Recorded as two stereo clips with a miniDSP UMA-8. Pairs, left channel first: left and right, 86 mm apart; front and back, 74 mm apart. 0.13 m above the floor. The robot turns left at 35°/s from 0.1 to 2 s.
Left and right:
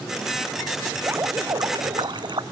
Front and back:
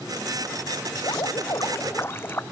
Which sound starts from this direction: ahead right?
Dripping, at 1.0 s.